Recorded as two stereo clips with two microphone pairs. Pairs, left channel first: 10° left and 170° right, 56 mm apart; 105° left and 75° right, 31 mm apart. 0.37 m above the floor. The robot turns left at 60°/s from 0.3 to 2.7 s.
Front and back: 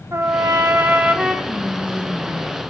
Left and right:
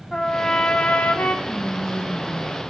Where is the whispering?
125° right, 1.0 m; by 2.6 s 165° left, 1.0 m.